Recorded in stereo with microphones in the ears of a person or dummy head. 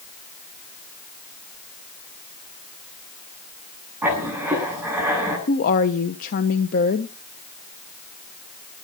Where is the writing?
10° right (ahead or behind), 8 m.